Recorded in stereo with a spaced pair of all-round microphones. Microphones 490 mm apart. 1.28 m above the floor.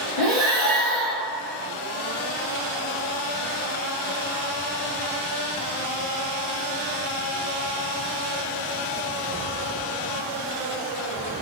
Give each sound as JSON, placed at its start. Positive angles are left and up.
{"t": 0.2, "sound": "breathing", "side_deg": 0, "distance_m": 1.0}